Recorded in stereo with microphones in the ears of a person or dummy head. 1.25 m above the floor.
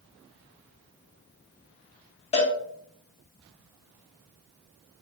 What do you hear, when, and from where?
2.3 s a cowbell: 30° left (ahead or behind), 1.3 m